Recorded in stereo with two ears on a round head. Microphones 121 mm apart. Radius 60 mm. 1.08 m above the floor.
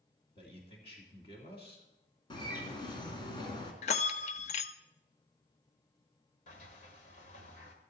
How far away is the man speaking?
About 2.5 m.